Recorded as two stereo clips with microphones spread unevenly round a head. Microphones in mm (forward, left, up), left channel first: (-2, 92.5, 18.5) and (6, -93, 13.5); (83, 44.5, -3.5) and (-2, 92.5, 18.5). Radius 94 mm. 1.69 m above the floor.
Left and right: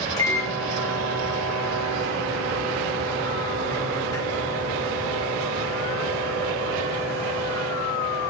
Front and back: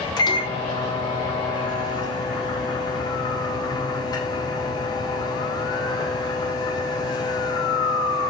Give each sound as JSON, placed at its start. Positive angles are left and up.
{"t": 0.2, "sound": "a microwave", "azimuth_deg": 20, "distance_m": 1.6}